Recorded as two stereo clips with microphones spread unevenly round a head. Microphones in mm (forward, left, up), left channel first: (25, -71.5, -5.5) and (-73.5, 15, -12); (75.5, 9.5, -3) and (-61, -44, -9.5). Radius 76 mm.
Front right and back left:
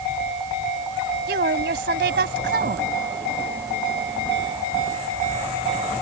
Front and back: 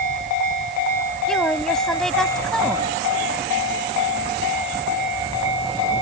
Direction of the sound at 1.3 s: 110° left.